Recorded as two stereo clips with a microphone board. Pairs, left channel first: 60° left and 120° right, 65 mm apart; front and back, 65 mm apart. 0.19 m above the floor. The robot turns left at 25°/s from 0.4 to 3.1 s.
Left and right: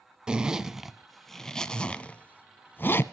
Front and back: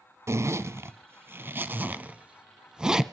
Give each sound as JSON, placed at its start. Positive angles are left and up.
{"t": 0.3, "sound": "a zipper", "azimuth_deg": 165, "distance_m": 0.5}